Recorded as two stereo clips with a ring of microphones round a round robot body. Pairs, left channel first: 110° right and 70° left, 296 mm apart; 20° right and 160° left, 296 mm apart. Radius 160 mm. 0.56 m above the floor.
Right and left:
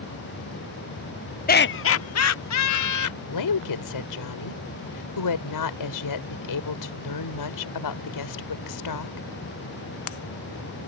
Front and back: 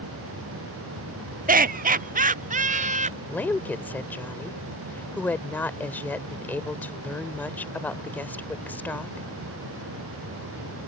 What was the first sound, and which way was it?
Laughter, 155° right.